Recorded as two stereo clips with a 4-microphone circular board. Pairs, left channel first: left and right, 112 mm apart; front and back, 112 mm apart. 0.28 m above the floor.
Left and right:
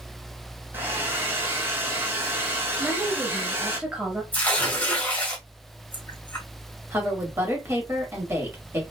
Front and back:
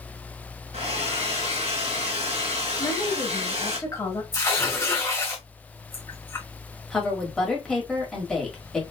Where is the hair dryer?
160° right, 1.4 m.